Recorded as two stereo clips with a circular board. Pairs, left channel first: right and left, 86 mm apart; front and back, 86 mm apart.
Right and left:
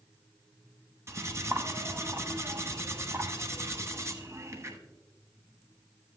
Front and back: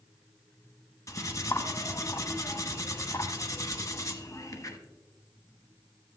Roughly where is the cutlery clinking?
Ahead left.